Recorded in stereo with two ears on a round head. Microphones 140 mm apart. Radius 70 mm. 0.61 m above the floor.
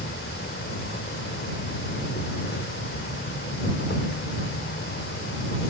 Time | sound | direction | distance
0.0 | an insect | 75° left (ahead or behind) | ?